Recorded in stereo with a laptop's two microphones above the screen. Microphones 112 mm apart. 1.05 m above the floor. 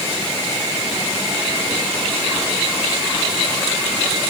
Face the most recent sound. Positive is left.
No sound to turn to.